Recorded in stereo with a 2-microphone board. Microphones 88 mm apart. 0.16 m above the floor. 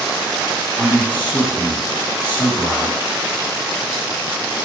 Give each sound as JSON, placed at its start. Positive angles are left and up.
{"t": 0.8, "sound": "a man speaking", "side_deg": 55, "distance_m": 1.8}